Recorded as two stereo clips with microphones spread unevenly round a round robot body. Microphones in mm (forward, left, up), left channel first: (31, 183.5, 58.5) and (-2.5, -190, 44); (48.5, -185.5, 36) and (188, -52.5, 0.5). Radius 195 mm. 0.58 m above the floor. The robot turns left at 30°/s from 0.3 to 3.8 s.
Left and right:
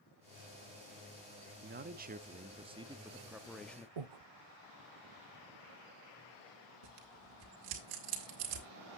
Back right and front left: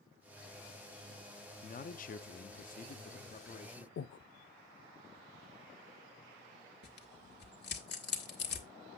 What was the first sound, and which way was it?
A man speaking, 125° right.